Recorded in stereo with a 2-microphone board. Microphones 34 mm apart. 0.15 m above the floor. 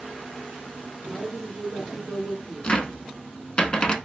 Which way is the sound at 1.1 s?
30° right (ahead or behind).